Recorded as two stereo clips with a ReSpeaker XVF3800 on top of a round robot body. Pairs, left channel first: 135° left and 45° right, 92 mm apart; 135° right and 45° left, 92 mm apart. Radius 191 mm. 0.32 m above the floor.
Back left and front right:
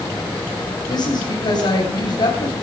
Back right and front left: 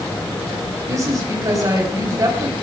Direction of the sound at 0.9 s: 95° left.